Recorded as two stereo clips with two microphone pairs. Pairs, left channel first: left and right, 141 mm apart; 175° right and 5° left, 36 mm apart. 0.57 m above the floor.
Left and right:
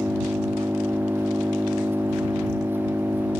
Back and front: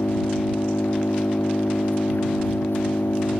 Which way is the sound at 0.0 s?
165° right.